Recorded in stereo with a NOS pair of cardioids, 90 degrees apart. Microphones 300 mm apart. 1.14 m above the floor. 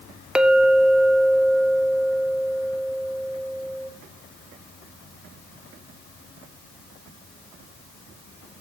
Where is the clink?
5° right, 0.7 m.